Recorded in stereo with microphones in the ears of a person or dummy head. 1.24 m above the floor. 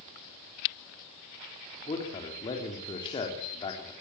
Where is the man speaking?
25° left (ahead or behind), 3.5 m.